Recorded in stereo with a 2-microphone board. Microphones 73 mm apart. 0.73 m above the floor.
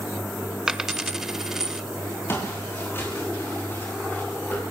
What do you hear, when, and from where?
0.7 s a dropped coin: 5° right (ahead or behind), 1.0 m
2.3 s footsteps: 30° left (ahead or behind), 8.5 m; by 4.6 s 25° left (ahead or behind), 10 m